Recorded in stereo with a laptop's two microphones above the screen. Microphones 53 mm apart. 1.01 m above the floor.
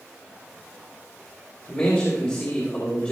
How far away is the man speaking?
About 3 m.